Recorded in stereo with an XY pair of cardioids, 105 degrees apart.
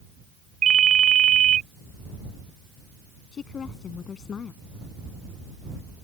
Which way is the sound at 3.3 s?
50° left.